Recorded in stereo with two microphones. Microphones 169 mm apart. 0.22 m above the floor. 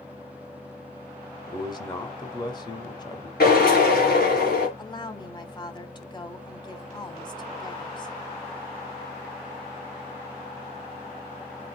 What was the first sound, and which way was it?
A man speaking, 25° left (ahead or behind).